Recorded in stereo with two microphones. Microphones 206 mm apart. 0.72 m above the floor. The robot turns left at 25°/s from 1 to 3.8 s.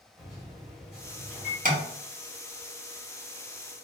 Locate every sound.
0.2 s a microwave: centre (ahead or behind), 1.4 m; by 1.6 s 10° left (ahead or behind), 1.4 m
1.6 s tapping: 40° right (ahead or behind), 0.8 m; by 1.8 s 45° right (ahead or behind), 0.8 m